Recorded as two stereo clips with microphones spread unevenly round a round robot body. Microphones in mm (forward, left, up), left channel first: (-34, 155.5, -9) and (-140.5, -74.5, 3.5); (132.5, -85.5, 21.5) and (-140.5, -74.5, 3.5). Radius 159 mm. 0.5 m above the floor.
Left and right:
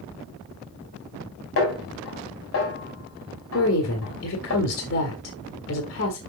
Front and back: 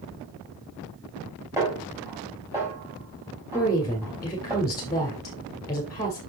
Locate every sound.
1.6 s a snare drum: 95° left, 4 m
3.5 s a woman speaking: 75° left, 1.6 m